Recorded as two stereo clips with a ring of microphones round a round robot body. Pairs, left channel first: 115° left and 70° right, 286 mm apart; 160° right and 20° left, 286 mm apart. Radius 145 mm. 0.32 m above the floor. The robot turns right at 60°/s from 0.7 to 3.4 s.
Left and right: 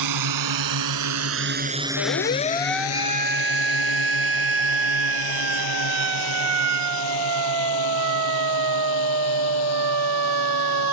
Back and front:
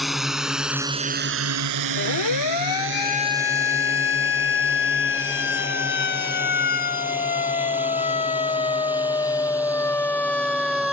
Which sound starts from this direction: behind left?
A siren, at 2.0 s.